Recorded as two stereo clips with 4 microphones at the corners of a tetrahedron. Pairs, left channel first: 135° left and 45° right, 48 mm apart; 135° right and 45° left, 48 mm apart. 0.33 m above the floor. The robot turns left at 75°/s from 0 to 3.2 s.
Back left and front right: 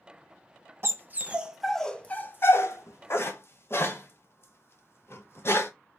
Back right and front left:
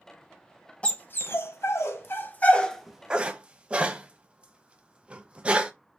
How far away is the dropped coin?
No dropped coin in this recording.